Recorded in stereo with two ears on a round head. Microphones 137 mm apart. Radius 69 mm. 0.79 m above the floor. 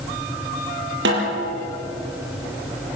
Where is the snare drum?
85° right, 6 m.